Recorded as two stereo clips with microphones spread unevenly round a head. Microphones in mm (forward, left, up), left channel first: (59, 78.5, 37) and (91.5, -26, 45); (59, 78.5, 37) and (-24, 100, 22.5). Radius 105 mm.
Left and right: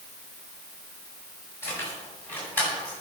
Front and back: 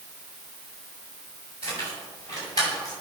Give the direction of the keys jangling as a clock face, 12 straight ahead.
5 o'clock.